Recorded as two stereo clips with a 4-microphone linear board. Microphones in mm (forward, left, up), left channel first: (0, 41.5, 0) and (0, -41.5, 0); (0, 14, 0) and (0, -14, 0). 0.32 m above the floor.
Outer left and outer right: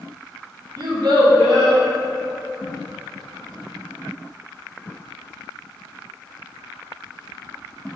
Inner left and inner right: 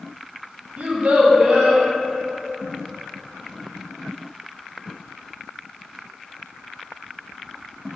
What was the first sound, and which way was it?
A child speaking, 60° right (ahead or behind).